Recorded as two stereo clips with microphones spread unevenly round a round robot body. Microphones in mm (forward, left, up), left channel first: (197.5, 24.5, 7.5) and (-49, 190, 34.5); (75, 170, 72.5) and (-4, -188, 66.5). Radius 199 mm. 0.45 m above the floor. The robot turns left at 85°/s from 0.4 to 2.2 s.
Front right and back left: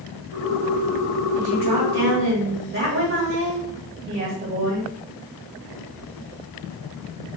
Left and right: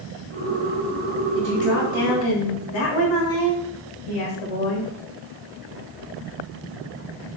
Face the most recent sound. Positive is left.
turn(degrees=100)